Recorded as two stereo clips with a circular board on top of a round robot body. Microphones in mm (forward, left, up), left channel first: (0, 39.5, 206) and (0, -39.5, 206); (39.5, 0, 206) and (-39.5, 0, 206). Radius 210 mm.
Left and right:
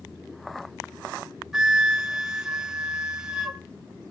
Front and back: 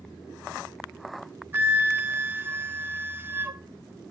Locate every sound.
1.5 s a flute: 165° right, 1.2 m